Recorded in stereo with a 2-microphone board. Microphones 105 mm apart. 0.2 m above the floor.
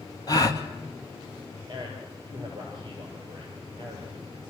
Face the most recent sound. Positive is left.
turn(degrees=-45)  # may be behind; listen again after turning